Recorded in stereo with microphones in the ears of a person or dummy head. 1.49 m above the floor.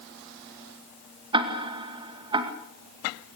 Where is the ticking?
30° right (ahead or behind), 2 m.